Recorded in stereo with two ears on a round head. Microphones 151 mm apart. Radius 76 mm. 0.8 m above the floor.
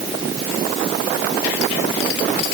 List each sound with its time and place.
Only background noise.